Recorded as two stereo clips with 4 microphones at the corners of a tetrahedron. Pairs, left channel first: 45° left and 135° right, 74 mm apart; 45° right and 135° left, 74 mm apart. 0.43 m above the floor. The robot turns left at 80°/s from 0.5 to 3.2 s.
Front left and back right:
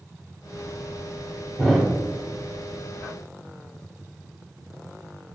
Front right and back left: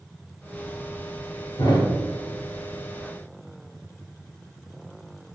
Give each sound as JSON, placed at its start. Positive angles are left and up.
{"t": 1.6, "sound": "a thud", "azimuth_deg": -35, "distance_m": 1.4}